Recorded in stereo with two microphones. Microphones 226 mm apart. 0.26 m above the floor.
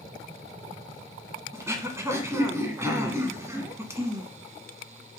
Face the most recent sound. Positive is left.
turn(degrees=-15)  # may be behind; listen again after turning